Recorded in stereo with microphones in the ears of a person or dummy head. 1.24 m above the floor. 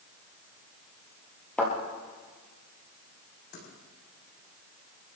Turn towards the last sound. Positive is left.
turn(degrees=60)  # may be behind; listen again after turning